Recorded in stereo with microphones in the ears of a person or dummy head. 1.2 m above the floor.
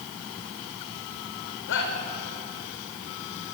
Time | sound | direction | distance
1.7 | a shout | 60° left (ahead or behind) | 5 m